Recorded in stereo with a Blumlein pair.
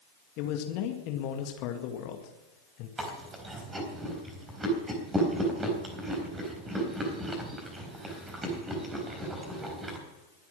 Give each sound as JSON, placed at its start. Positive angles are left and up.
{"t": 0.4, "sound": "a man speaking", "azimuth_deg": 40, "distance_m": 2.0}
{"t": 3.0, "sound": "chewing", "azimuth_deg": -15, "distance_m": 4.0}